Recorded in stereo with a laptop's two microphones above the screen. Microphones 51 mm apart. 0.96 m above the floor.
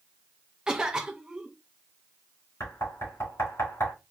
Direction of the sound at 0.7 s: 15° right (ahead or behind).